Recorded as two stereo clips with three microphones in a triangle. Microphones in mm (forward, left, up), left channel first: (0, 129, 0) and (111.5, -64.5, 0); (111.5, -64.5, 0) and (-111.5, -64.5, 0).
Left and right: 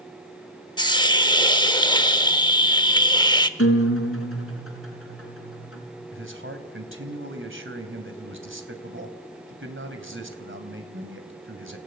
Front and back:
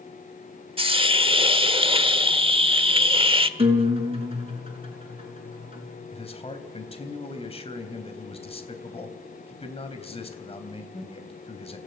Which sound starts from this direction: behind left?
A guitar, at 3.6 s.